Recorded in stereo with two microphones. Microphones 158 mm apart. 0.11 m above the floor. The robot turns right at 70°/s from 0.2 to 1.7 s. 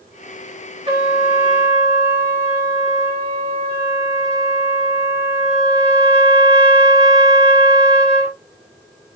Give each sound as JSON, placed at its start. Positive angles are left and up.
{"t": 0.9, "sound": "a trumpet", "azimuth_deg": -120, "distance_m": 1.2}